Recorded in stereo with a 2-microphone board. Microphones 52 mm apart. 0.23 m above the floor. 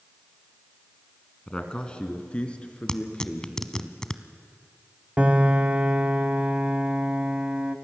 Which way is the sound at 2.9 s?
15° left (ahead or behind).